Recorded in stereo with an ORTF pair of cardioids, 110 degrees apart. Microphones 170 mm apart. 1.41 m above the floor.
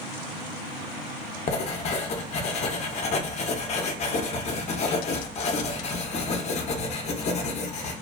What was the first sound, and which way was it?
Writing, 45° left.